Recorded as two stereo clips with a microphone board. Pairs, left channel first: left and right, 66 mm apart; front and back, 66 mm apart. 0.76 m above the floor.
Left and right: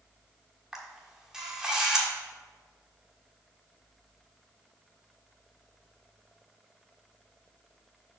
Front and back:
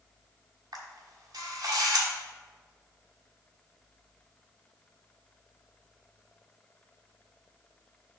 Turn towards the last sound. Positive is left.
turn(degrees=-170)